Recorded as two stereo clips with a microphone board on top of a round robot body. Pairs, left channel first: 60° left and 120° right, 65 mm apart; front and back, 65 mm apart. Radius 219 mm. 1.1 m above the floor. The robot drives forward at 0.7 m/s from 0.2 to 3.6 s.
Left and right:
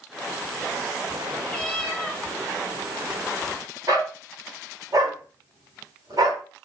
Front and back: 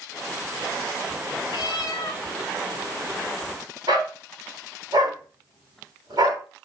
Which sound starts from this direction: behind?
A dog barking, at 3.9 s.